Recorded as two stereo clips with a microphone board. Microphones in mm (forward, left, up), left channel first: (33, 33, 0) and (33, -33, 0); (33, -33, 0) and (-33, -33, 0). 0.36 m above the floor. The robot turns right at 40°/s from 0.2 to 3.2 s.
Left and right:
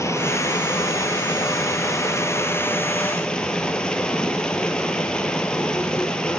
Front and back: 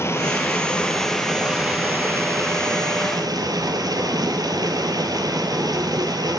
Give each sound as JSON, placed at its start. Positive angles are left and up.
{"t": 0.0, "sound": "running water", "azimuth_deg": 45, "distance_m": 2.5}